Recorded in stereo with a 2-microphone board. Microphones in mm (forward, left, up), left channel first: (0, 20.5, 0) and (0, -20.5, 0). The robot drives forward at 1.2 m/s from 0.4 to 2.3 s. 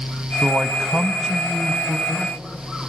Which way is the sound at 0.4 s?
20° right (ahead or behind).